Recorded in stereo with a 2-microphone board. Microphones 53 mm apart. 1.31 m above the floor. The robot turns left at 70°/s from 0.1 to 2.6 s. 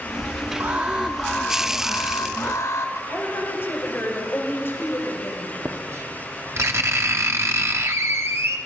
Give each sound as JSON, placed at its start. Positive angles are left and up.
{"t": 0.6, "sound": "an alarm", "azimuth_deg": -135, "distance_m": 3.0}
{"t": 3.1, "sound": "a woman speaking", "side_deg": 45, "distance_m": 5.0}
{"t": 5.7, "sound": "writing", "side_deg": -60, "distance_m": 1.4}